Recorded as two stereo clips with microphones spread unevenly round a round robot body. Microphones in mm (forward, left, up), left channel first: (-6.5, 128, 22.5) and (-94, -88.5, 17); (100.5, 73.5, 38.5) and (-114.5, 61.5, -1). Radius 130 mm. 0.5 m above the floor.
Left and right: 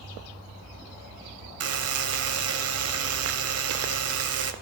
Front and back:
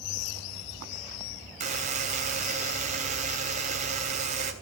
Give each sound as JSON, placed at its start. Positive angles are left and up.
{"t": 1.6, "sound": "a buzzer", "azimuth_deg": -120, "distance_m": 3.0}